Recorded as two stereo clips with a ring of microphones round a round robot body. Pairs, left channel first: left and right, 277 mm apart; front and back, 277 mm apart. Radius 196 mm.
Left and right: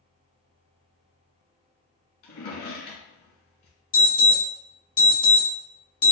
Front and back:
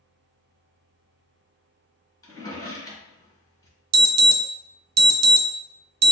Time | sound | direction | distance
2.2 | a drawer | 75° left | 1.9 m
3.9 | an alarm | 150° left | 0.7 m